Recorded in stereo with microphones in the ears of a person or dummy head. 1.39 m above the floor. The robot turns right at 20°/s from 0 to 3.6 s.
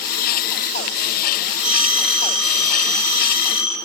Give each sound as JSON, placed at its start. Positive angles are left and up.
{"t": 1.6, "sound": "a phone ringing", "azimuth_deg": -5, "distance_m": 0.8}